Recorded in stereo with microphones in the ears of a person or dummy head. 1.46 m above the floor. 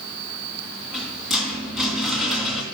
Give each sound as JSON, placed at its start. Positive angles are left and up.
{"t": 0.8, "sound": "a rattle", "side_deg": 0, "distance_m": 2.5}